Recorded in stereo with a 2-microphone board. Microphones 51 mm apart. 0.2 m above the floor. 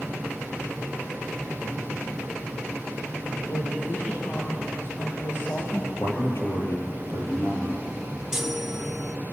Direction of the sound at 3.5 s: 55° left (ahead or behind).